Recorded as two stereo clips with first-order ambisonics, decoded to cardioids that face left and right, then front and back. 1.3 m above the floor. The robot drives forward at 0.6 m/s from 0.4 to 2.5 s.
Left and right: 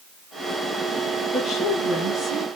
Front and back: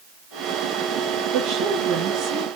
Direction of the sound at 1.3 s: 170° left.